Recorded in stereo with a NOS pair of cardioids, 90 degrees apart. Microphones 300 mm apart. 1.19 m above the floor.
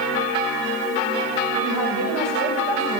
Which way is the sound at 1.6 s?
65° right.